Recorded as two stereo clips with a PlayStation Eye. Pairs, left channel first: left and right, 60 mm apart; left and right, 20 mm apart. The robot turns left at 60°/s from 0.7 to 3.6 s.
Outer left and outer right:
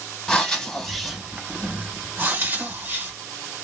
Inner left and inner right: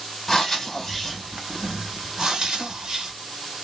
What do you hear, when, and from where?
0.3 s breathing: 10° left (ahead or behind), 1.3 m; by 3.1 s 30° right (ahead or behind), 1.3 m